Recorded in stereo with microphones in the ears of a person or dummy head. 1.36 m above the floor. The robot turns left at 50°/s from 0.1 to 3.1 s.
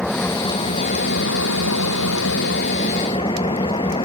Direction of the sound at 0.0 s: Straight behind.